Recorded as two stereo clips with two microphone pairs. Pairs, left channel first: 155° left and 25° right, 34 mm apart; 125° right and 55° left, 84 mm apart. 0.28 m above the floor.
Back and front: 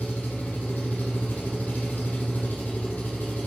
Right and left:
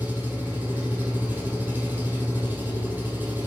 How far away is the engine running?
About 4 m.